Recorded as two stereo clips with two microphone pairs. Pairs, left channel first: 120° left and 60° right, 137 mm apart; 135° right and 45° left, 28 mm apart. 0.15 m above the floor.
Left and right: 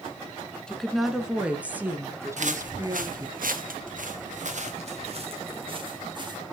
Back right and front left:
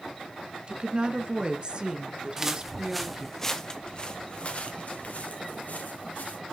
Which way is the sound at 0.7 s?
40° left.